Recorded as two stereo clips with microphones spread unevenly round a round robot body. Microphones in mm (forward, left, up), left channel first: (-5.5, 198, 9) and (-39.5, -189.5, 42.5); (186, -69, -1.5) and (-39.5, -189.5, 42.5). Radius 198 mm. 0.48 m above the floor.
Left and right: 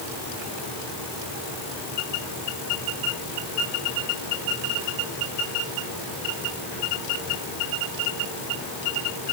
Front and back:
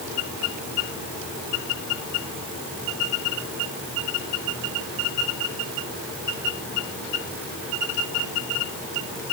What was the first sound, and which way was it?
Only background noise.